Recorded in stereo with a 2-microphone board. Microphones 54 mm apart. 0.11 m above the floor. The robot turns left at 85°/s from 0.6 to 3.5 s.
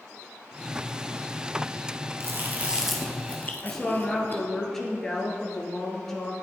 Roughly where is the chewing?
Right.